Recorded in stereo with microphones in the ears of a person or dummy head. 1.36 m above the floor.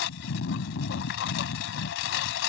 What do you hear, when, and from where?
0.0 s a lawn mower: 70° left (ahead or behind)